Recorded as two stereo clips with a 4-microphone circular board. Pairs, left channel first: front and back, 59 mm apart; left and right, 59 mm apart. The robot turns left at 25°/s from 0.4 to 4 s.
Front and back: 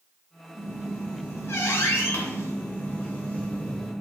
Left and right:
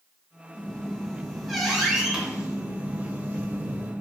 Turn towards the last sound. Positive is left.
turn(degrees=-60)